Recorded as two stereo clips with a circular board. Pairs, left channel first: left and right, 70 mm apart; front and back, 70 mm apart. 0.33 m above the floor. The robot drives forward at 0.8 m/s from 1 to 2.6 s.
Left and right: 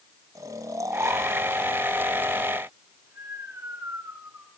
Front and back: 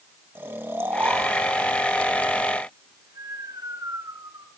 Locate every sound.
0.3 s snoring: 125° right, 2 m; by 4.5 s 145° right, 3 m